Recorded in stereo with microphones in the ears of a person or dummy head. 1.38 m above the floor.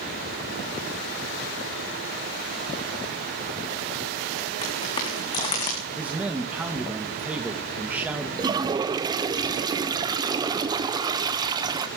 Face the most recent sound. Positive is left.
turn(degrees=-25)  # may be behind; listen again after turning